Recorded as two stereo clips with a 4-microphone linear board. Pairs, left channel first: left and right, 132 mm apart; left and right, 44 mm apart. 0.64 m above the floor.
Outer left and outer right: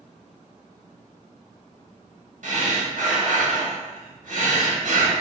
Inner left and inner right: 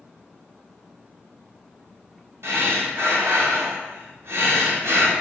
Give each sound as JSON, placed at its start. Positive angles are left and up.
{"t": 2.4, "sound": "breathing", "side_deg": -70, "distance_m": 0.9}